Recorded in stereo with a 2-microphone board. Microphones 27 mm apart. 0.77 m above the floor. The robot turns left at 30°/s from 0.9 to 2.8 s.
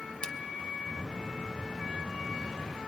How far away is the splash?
About 1.0 m.